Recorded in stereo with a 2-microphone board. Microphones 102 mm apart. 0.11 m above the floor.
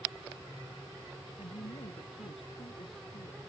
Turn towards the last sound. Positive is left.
turn(degrees=75)  # may be behind; listen again after turning